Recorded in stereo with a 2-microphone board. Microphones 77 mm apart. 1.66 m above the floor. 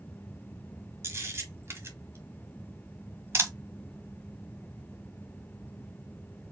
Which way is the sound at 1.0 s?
30° right (ahead or behind).